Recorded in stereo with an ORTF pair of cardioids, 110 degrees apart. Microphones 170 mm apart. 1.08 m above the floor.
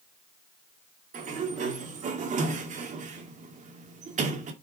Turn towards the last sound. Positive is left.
turn(degrees=-45)